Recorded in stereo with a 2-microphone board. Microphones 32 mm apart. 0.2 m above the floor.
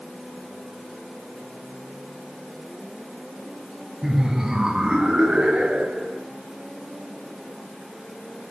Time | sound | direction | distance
4.0 | laughter | 10° right (ahead or behind) | 1.2 m